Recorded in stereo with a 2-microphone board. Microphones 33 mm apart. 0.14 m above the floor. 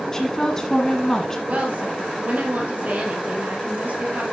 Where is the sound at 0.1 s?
15° left (ahead or behind), 1.4 m.